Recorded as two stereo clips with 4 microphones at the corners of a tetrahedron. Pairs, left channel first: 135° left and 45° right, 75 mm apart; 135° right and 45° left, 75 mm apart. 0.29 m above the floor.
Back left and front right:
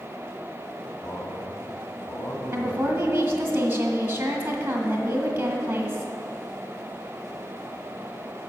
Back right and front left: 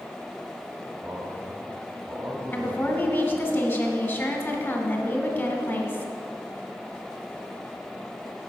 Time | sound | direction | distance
1.0 | a man speaking | 95° left | 1.6 m
2.5 | a woman speaking | 95° right | 1.6 m